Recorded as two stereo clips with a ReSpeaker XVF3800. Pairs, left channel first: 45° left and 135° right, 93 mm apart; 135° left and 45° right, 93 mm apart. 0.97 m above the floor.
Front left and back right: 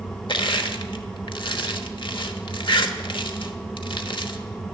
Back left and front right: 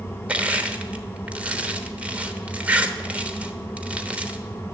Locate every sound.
0.3 s crushing: 30° left, 1.0 m